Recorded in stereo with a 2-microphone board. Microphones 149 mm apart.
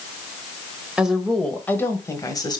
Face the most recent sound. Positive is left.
turn(degrees=30)  # may be behind; listen again after turning